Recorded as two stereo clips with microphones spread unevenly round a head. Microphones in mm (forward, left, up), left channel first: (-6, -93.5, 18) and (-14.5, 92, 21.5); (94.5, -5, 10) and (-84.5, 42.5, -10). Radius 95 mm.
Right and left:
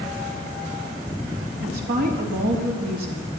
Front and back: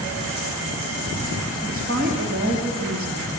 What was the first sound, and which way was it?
A woman speaking, 130° left.